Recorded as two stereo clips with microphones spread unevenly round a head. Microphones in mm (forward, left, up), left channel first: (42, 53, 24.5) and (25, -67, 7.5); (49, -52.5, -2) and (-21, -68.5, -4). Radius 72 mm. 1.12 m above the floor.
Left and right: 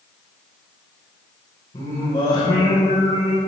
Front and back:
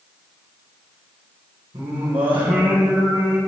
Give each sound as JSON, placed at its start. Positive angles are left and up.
{"t": 1.7, "sound": "singing", "azimuth_deg": 145, "distance_m": 3.5}